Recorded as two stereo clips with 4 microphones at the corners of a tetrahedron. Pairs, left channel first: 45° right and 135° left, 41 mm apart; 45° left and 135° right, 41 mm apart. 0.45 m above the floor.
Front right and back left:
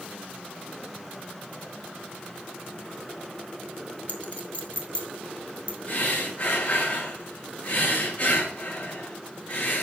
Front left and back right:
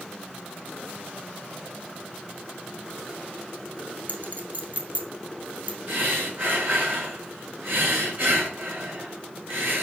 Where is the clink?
95° right, 1.9 m.